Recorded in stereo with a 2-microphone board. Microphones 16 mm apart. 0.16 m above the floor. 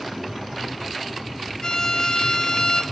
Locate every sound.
1.6 s a violin: 50° left (ahead or behind), 0.6 m